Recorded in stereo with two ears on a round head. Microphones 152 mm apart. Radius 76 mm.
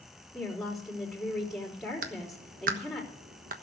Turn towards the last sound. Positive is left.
turn(degrees=-55)  # may be behind; listen again after turning